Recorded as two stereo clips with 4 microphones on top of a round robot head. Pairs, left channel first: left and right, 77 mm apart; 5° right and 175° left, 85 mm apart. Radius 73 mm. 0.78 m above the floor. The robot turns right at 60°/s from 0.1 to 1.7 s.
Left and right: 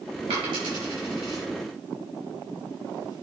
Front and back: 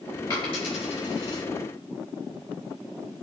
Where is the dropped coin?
65° right, 5.5 m; by 1.4 s 5° left, 5.5 m.